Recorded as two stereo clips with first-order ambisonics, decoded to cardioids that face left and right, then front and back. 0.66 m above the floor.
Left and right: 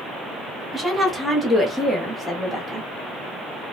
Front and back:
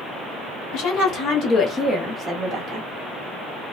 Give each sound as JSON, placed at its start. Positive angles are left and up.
{"t": 0.7, "sound": "a woman speaking", "azimuth_deg": -5, "distance_m": 1.2}